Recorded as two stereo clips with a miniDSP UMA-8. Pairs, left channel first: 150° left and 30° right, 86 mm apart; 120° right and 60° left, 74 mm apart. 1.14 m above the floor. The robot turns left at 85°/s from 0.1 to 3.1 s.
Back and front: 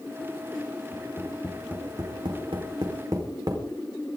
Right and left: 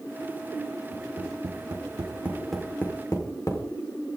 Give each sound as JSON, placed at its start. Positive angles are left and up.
{"t": 0.9, "sound": "tapping", "azimuth_deg": 105, "distance_m": 4.5}